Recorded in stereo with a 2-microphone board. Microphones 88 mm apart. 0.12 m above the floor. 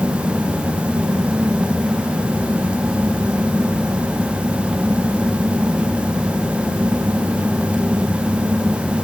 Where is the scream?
I don't hear a scream.